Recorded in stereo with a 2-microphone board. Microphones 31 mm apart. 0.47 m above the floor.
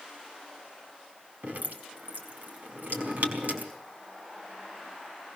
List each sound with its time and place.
1.4 s dripping: 70° right (ahead or behind), 4.5 m